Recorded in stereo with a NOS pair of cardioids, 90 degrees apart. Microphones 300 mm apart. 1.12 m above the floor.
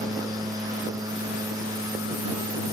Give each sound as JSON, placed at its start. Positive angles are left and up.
{"t": 0.0, "sound": "a machine running", "azimuth_deg": -10}